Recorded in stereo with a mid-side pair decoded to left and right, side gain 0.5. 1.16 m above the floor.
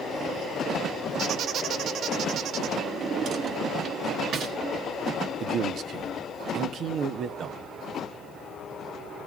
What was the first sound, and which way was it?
A squeak, 60° right.